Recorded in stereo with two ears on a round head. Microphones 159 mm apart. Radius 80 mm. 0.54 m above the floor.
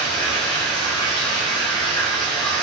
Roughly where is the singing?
No singing in this recording.